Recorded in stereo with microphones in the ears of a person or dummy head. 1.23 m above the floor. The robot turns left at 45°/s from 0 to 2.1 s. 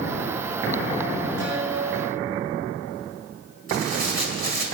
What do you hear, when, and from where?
1.4 s a guitar: 120° right, 7 m; by 2.6 s 155° right, 7 m
3.7 s tearing paper: 60° right (ahead or behind), 2.5 m